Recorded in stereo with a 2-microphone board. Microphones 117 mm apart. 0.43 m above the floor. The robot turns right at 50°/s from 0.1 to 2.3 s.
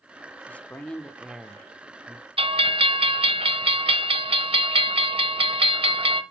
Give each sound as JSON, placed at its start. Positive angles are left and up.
{"t": 0.5, "sound": "a man speaking", "side_deg": 15, "distance_m": 0.7}
{"t": 2.4, "sound": "a bell", "side_deg": -55, "distance_m": 0.9}